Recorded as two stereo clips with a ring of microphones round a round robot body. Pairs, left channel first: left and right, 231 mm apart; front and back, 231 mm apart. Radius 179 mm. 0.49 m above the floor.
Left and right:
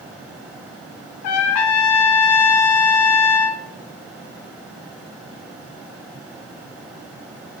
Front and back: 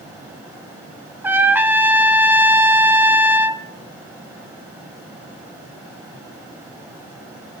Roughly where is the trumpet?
Left.